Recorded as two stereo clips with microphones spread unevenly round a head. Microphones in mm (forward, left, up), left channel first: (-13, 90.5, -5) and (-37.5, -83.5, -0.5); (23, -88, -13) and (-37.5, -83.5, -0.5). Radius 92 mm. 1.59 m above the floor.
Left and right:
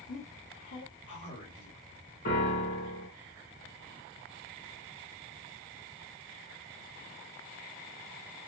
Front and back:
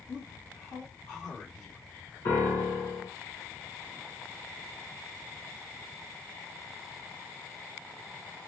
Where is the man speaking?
65° left, 1.8 m.